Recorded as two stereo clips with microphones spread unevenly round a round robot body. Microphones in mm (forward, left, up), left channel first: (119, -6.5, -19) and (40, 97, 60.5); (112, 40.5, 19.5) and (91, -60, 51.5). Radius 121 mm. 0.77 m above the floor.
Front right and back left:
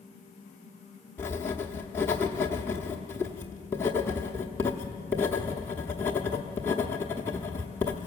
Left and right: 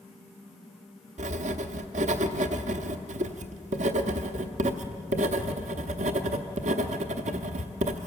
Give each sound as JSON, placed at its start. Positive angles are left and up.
{"t": 1.2, "sound": "writing", "azimuth_deg": -115, "distance_m": 0.9}